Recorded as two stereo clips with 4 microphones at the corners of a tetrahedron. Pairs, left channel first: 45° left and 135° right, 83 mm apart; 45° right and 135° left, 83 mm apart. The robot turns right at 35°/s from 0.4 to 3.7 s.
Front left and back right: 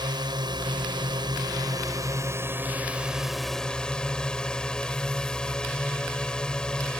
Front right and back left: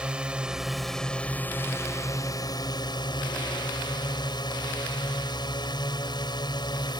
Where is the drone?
150° right; by 7.0 s 35° right.